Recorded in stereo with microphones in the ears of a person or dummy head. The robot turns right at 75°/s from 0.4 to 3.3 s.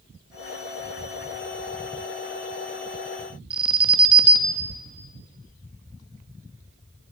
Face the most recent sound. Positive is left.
turn(degrees=-5)  # may be behind; listen again after turning